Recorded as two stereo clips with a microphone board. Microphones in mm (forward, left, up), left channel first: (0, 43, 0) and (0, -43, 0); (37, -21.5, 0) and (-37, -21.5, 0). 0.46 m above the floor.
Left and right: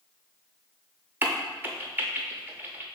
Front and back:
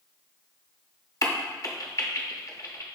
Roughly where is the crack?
Ahead right.